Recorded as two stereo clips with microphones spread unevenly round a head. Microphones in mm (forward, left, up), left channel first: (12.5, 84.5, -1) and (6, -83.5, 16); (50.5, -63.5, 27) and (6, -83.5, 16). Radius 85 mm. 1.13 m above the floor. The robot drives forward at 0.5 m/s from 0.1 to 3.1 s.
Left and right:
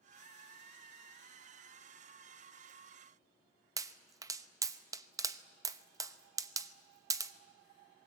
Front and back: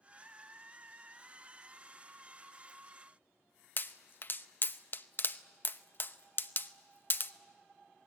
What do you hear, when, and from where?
3.8 s a pop: 20° right, 0.9 m